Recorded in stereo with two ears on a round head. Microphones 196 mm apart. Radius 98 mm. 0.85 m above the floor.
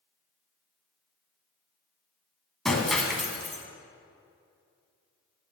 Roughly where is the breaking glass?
Centre.